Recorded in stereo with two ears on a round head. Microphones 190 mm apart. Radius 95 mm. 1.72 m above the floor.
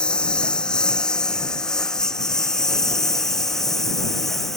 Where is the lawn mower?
5° left (ahead or behind); by 4.6 s centre (ahead or behind).